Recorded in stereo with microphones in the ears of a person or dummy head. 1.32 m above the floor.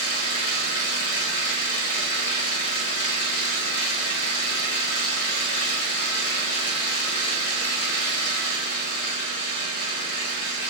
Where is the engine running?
35° left (ahead or behind), 1.4 m.